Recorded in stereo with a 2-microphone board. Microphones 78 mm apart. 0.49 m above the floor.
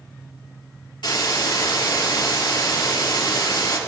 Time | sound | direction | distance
1.0 | a hiss | 75° left (ahead or behind) | 4.5 m